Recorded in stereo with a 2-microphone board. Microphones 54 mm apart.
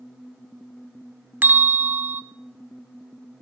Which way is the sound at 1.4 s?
35° right (ahead or behind).